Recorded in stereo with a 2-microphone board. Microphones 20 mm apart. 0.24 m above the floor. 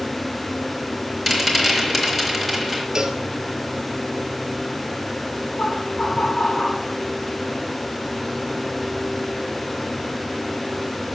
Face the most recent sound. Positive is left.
turn(degrees=50)  # may be behind; listen again after turning